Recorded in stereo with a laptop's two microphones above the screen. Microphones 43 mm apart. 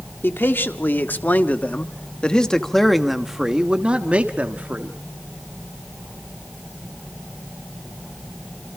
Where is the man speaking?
60° left (ahead or behind), 1.9 m; by 4.9 s 45° right (ahead or behind), 1.6 m.